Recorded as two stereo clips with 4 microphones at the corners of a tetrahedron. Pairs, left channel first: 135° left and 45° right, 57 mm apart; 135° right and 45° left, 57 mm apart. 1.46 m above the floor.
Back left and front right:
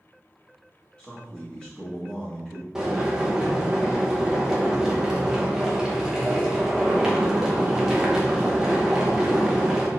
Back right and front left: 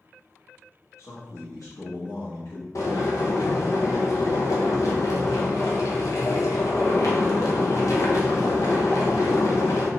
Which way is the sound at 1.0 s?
150° right.